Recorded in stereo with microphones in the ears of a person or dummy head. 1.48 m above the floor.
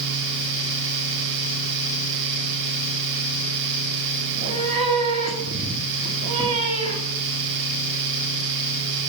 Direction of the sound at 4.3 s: 35° right (ahead or behind).